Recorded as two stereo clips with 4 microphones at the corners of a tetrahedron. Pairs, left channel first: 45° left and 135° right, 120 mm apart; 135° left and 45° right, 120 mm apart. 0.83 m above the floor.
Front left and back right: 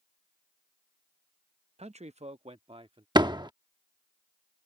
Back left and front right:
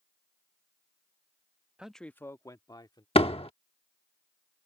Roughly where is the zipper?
No zipper in this recording.